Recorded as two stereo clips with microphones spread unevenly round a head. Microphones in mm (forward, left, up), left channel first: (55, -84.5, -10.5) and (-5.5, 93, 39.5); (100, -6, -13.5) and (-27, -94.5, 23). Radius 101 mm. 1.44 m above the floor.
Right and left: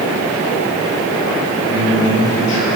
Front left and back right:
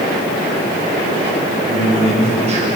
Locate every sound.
1.7 s a man speaking: 100° right, 10 m